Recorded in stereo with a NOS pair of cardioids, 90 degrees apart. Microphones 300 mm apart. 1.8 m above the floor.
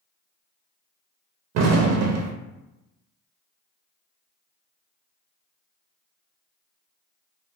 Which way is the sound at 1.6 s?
55° right.